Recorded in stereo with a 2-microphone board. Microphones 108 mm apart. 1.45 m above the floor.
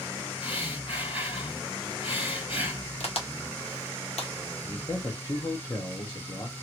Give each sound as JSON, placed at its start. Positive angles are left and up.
{"t": 0.4, "sound": "breathing", "side_deg": 55, "distance_m": 2.5}
{"t": 3.0, "sound": "a crack", "side_deg": 80, "distance_m": 1.1}
{"t": 4.6, "sound": "a man speaking", "side_deg": 30, "distance_m": 0.8}